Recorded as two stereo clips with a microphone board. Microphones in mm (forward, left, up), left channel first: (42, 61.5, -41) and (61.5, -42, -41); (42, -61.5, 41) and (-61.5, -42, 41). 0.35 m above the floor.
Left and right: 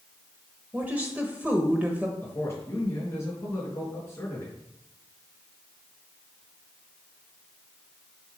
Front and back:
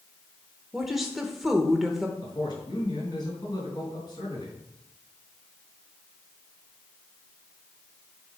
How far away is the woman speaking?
About 0.9 m.